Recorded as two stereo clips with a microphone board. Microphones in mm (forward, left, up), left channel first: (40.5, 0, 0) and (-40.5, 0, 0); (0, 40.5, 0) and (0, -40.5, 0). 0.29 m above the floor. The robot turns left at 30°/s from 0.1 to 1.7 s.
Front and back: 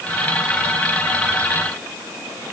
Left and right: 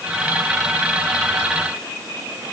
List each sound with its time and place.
Only background noise.